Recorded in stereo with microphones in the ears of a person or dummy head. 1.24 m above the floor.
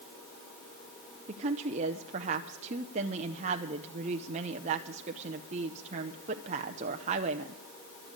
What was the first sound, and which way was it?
A woman speaking, 35° right (ahead or behind).